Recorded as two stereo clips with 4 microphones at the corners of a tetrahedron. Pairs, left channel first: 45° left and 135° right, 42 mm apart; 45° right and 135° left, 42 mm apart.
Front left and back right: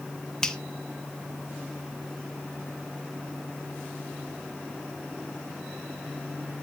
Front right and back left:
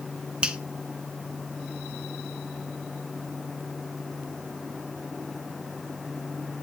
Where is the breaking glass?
I don't hear breaking glass.